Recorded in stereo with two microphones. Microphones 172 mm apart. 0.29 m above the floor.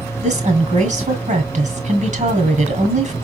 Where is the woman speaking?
45° right (ahead or behind), 1.5 m.